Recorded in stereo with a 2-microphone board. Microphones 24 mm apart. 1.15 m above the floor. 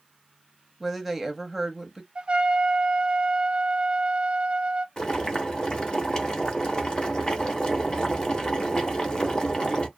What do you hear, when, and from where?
0.8 s a woman speaking: 5° right (ahead or behind), 0.9 m
2.1 s a trumpet: 45° right (ahead or behind), 0.6 m
5.0 s boiling: 35° left (ahead or behind), 0.9 m